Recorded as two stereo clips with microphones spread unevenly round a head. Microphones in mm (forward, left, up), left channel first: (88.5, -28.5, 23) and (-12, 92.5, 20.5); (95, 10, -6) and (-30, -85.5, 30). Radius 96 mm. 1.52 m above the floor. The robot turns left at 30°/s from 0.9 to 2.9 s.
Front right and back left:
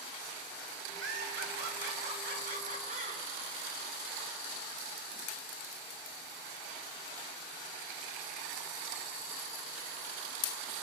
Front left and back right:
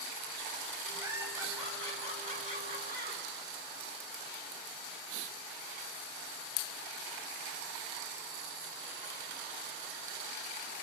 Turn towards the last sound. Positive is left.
turn(degrees=90)